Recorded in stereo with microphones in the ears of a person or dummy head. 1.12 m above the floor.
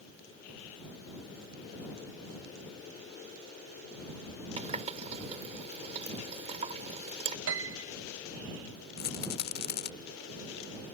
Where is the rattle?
45° left (ahead or behind).